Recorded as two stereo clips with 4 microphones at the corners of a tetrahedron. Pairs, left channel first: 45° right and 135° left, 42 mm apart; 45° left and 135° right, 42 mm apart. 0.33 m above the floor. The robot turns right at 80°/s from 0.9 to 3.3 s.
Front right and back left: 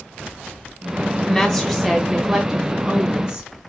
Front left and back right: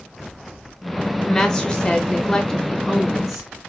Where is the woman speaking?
20° right, 0.9 m; by 3.7 s 145° left, 0.9 m.